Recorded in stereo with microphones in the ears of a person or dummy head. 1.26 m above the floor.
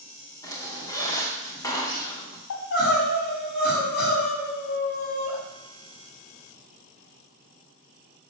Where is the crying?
60° left (ahead or behind), 5 m.